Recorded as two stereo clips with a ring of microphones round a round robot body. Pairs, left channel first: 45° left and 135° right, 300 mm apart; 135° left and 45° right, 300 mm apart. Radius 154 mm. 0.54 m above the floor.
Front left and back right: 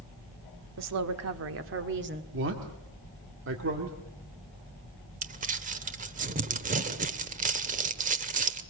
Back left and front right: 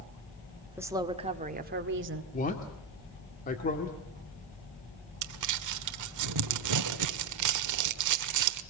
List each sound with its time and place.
0.8 s a woman speaking: 125° right, 1.7 m; by 2.2 s 85° right, 1.8 m
2.3 s a man speaking: 170° right, 1.9 m
5.2 s crumpling: 70° right, 1.2 m